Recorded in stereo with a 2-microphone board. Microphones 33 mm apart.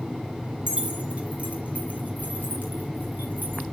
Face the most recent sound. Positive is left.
turn(degrees=-60)  # may be behind; listen again after turning